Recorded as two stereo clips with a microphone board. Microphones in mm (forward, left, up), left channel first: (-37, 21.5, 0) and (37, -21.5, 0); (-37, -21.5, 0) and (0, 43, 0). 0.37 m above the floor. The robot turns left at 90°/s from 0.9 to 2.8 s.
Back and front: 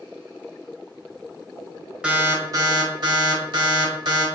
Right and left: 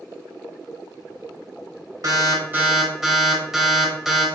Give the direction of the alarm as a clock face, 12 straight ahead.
10 o'clock.